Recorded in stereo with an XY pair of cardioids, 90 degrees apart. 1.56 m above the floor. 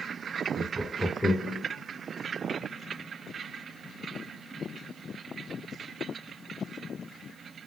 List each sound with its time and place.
0.6 s laughter: 60° right, 0.5 m; by 1.6 s 40° left, 1.2 m